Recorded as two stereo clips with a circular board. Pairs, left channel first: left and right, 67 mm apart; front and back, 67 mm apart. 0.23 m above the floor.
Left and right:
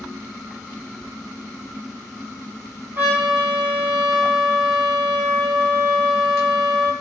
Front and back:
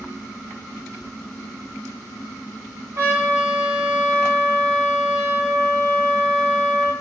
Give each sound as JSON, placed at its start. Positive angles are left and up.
{"t": 3.0, "sound": "a trumpet", "azimuth_deg": -145, "distance_m": 1.3}